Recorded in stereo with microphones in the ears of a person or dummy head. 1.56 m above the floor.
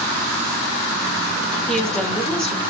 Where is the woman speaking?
5° left (ahead or behind), 1.4 m.